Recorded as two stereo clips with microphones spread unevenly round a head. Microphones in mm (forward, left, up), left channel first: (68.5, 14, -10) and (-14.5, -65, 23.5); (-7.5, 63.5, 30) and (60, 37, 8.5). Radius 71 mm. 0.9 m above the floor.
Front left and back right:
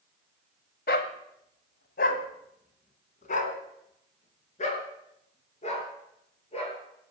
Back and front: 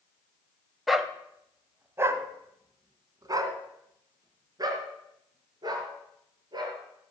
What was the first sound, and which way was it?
A dog barking, 75° left.